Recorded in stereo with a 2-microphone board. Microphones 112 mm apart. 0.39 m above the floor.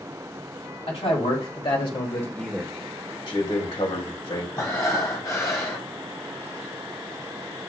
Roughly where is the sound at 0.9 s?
Left.